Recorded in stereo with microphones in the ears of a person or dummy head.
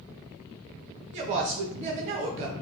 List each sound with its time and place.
1.1 s a woman speaking: 35° right (ahead or behind), 0.7 m